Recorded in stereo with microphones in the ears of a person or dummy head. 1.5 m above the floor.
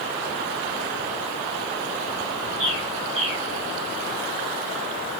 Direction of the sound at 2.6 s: 75° right (ahead or behind).